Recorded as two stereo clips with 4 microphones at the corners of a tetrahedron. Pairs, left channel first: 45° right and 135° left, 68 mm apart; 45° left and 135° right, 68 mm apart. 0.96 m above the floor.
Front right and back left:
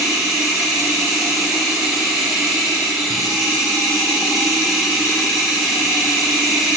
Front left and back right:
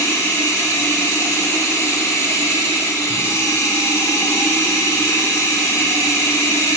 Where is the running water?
55° left, 1.0 m.